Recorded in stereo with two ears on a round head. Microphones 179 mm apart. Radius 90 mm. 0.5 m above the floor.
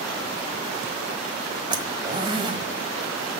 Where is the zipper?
25° right (ahead or behind), 1.2 m.